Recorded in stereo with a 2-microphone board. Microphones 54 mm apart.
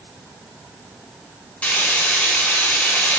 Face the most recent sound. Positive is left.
turn(degrees=30)  # may be behind; listen again after turning